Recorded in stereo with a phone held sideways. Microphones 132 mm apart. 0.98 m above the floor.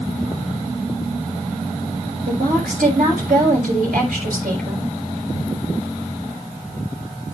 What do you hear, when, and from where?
2.3 s a woman speaking: 80° right, 7 m